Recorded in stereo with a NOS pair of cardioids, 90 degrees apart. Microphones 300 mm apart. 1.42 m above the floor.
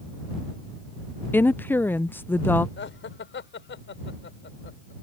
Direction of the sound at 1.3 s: 5° left.